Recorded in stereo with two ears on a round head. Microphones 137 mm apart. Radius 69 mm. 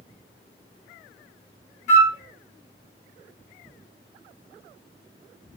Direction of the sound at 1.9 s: 50° left (ahead or behind).